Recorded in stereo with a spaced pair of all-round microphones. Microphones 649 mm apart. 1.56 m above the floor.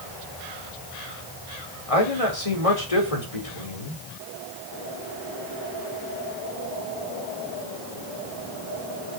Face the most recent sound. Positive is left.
turn(degrees=60)  # may be behind; listen again after turning